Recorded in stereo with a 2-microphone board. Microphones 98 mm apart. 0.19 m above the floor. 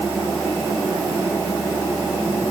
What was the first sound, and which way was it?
Only background noise.